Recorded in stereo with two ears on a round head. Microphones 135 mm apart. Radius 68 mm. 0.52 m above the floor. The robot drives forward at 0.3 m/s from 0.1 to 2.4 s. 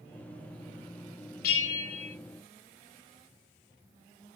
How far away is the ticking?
No ticking in this recording.